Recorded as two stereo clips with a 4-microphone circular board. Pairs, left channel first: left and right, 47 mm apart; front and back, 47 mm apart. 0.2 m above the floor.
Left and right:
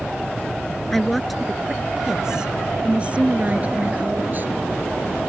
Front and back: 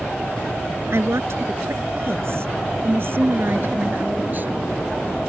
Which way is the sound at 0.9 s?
175° left.